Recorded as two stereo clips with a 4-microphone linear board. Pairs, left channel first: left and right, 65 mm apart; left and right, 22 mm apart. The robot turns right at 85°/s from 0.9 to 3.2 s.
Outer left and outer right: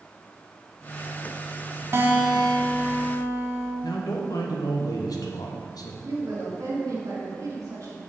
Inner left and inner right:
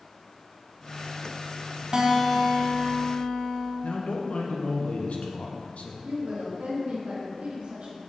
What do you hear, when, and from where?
1.9 s a guitar: 40° right, 0.9 m; by 3.7 s 65° left, 0.9 m
3.8 s a man speaking: 80° left, 1.0 m
6.0 s a woman speaking: 65° right (ahead or behind), 2.5 m